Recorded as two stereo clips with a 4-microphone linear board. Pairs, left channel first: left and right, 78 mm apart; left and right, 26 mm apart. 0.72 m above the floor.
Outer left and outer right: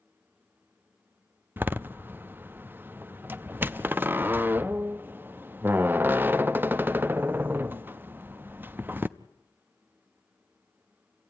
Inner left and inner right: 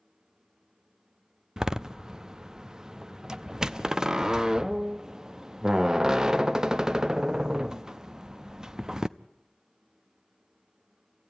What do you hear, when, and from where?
1.6 s a door slam: 25° right (ahead or behind), 0.6 m